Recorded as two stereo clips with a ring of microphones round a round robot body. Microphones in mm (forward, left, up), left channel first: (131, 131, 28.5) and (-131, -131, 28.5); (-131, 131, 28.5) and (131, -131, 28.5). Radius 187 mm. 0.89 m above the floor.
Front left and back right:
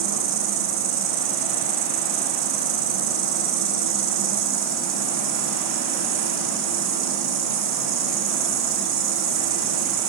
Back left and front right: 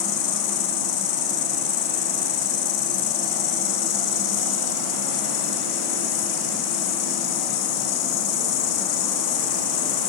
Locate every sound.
0.0 s an insect: 165° left, 5 m